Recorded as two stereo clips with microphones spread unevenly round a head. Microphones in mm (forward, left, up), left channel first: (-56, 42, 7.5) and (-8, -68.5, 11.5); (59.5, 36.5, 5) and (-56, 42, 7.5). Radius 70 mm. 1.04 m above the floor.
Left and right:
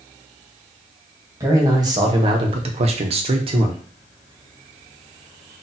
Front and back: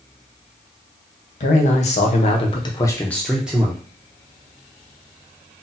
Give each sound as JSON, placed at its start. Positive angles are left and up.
{"t": 1.4, "sound": "a man speaking", "azimuth_deg": 0, "distance_m": 1.0}